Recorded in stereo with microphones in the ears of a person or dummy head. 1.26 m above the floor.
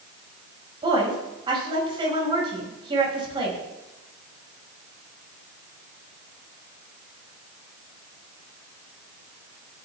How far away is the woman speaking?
About 6.5 m.